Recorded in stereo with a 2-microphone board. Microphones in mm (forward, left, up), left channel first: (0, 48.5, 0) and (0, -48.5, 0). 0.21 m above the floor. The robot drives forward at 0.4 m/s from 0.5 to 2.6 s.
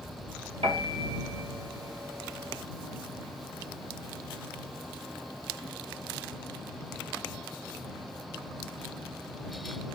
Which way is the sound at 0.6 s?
80° right.